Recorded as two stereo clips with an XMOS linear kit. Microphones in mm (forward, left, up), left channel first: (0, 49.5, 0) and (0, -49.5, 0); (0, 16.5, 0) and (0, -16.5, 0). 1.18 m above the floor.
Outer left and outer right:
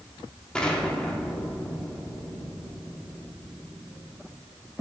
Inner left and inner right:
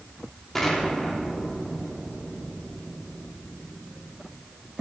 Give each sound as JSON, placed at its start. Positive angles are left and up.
{"t": 0.6, "sound": "an explosion", "side_deg": 10, "distance_m": 1.7}